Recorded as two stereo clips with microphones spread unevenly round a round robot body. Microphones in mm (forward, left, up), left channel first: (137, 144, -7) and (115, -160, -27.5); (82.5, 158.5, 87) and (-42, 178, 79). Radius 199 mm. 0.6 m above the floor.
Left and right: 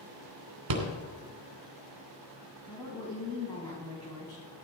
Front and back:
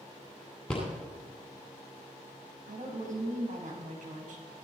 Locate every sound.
0.7 s a rattle: 95° right, 2.5 m
2.7 s a woman speaking: 165° left, 3.5 m